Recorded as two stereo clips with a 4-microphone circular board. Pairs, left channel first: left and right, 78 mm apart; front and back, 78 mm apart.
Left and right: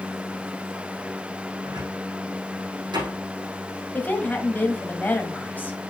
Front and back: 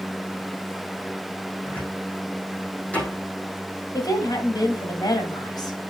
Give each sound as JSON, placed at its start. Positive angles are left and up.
{"t": 1.6, "sound": "a cupboard door", "azimuth_deg": -75, "distance_m": 5.0}
{"t": 3.9, "sound": "a woman speaking", "azimuth_deg": 25, "distance_m": 1.7}